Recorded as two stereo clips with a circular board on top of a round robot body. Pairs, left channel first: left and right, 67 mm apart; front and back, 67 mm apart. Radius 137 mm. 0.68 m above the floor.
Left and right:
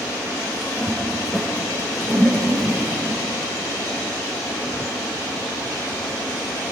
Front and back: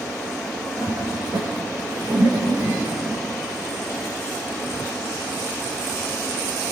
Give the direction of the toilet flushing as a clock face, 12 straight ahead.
6 o'clock.